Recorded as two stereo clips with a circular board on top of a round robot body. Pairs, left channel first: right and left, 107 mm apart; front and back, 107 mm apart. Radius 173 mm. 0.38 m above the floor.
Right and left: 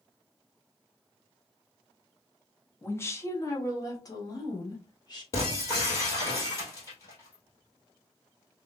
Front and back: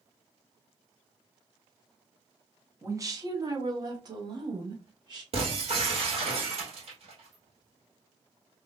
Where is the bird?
No bird in this recording.